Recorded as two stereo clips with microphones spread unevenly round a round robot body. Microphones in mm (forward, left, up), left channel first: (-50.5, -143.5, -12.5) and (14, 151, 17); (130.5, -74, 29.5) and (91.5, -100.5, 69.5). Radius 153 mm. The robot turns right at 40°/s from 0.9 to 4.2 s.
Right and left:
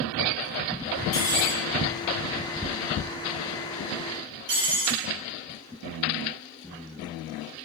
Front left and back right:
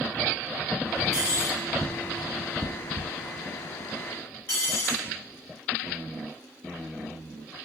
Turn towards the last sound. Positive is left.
turn(degrees=5)